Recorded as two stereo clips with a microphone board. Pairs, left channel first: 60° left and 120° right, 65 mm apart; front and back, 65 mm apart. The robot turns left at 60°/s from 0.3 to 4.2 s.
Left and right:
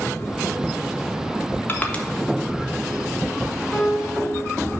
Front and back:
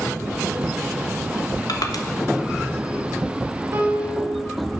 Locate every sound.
1.7 s crushing: 5° left, 1.2 m; by 2.0 s 15° right, 1.2 m
3.7 s a piano: 140° left, 2.5 m; by 4.3 s 110° left, 2.5 m